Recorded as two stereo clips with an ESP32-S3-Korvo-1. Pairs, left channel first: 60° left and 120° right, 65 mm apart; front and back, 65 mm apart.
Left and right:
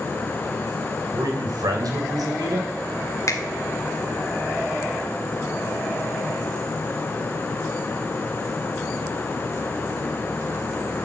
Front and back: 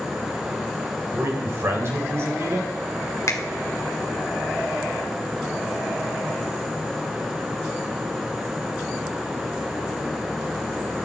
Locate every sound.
1.1 s a man speaking: 130° right, 3 m
3.3 s a finger snap: 30° left, 1.7 m